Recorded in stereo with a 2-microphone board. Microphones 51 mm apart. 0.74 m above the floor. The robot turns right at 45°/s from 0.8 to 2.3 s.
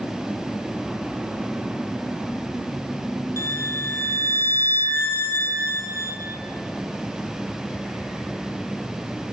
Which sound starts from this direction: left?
A violin, at 3.4 s.